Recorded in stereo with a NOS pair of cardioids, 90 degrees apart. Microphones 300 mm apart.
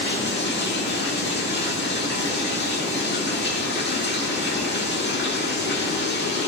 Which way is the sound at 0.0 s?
35° left.